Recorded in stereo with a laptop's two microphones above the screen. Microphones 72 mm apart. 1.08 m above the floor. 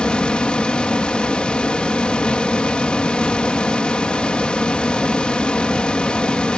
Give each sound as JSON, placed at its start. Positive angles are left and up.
{"t": 0.0, "sound": "a fan", "side_deg": 15}